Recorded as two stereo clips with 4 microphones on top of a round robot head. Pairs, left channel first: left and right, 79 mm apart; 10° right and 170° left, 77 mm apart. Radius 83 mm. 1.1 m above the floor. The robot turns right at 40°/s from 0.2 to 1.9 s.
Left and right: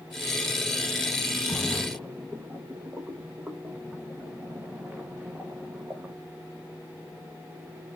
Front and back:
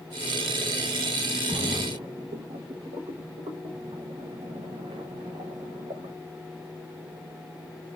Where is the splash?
Straight behind, 1.1 m; by 6.2 s 165° right, 1.1 m.